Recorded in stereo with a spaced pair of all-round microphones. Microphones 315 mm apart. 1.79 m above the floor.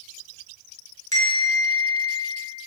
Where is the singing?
I don't hear singing.